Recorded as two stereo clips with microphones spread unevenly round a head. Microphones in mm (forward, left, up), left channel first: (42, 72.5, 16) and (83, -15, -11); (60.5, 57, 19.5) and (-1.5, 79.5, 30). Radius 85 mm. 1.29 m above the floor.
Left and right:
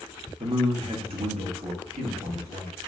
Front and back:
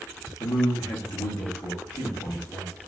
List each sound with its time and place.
0.4 s a man speaking: 30° right, 0.8 m; by 2.7 s 70° right, 2 m